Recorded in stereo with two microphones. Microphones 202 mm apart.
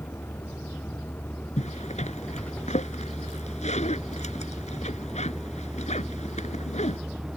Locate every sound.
0.0 s a vehicle: 10° left (ahead or behind); by 7.4 s 5° right (ahead or behind)
1.6 s a zipper: 35° left (ahead or behind)